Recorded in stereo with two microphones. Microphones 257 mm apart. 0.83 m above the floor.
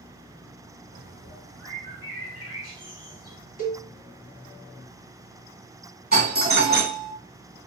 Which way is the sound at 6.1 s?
35° right (ahead or behind).